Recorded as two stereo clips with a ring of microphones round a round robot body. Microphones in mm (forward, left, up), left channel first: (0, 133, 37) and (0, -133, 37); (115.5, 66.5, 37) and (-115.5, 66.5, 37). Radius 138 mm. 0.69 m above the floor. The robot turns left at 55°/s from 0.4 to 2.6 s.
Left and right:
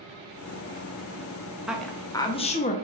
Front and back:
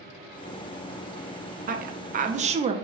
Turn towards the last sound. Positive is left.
turn(degrees=135)